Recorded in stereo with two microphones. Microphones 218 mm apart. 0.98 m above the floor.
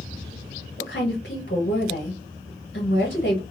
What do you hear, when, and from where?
0.8 s a woman speaking: 45° left (ahead or behind), 1.1 m